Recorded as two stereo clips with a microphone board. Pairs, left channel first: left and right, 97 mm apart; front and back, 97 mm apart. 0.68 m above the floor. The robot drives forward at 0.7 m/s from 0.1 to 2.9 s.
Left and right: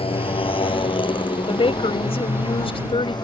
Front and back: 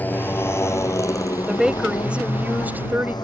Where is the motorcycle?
75° left; by 3.2 s 45° left.